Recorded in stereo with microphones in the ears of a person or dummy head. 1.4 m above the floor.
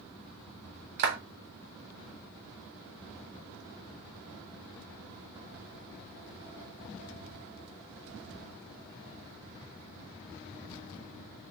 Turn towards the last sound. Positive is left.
turn(degrees=-50)  # may be behind; listen again after turning